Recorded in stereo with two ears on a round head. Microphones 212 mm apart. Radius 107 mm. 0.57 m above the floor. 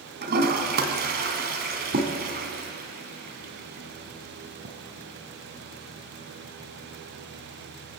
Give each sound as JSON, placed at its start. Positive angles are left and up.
{"t": 0.2, "sound": "a toilet flushing", "side_deg": -40, "distance_m": 2.5}